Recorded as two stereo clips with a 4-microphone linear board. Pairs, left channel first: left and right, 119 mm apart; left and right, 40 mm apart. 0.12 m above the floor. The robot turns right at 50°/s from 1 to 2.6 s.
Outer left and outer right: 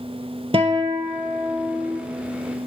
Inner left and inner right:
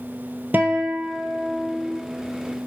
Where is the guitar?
55° right, 0.5 m; by 2.0 s 5° right, 0.5 m.